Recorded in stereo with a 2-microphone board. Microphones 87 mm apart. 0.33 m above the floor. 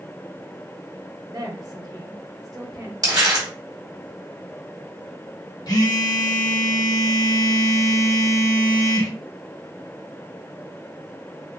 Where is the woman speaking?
50° right (ahead or behind), 1.3 m.